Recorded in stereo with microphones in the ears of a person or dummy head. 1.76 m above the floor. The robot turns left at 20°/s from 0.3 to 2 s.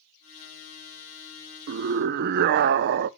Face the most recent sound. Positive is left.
turn(degrees=-60)  # may be behind; listen again after turning